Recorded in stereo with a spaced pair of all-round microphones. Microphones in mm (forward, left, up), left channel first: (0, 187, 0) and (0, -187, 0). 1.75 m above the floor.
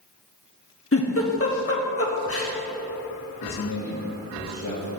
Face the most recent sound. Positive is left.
turn(degrees=60)  # may be behind; listen again after turning